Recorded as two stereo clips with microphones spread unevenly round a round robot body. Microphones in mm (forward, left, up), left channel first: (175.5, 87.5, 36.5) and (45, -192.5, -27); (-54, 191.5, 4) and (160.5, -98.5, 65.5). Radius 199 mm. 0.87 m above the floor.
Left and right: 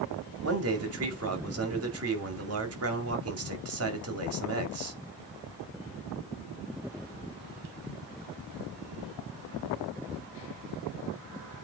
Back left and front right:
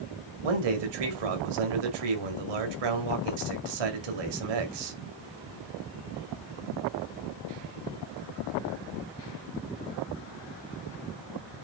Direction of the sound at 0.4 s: 80° right.